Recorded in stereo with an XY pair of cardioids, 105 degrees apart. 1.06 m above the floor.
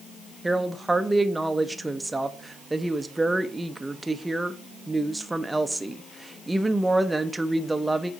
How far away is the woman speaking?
About 0.8 m.